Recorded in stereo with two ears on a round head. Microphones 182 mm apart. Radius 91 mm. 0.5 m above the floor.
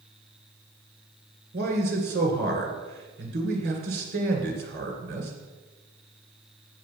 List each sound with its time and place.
1.5 s a man speaking: 50° right (ahead or behind), 2 m